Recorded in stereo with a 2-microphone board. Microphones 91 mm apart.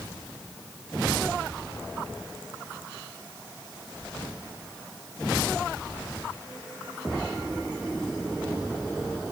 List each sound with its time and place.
Only background noise.